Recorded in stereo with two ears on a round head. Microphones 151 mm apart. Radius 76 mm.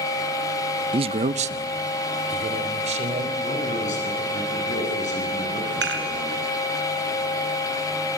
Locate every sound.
0.9 s a man speaking: 30° right (ahead or behind), 0.6 m; by 3.3 s 40° right (ahead or behind), 4 m
3.4 s a man speaking: 45° left (ahead or behind), 8.5 m
5.8 s dishes clattering: 70° right (ahead or behind), 3 m